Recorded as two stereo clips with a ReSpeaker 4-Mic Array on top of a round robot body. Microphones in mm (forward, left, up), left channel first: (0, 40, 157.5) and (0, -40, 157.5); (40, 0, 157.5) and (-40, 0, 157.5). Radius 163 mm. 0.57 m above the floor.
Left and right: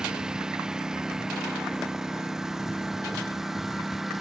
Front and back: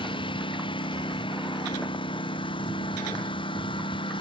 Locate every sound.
0.0 s a lawn mower: 10° right; by 4.2 s 5° right